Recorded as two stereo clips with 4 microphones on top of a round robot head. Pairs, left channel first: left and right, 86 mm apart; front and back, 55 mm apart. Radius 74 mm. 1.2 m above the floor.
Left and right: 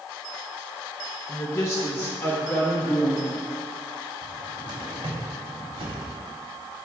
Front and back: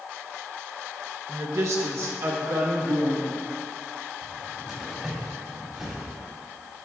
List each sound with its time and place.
1.3 s a woman speaking: 145° left, 0.9 m; by 3.4 s 160° left, 2 m
4.2 s a cupboard door: 100° right, 2.5 m